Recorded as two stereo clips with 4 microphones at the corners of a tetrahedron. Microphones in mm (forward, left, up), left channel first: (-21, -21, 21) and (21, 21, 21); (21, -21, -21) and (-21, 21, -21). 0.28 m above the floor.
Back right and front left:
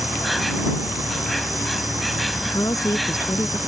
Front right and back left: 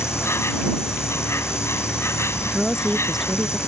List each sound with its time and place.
0.0 s an insect: 45° right
2.5 s a woman speaking: 140° right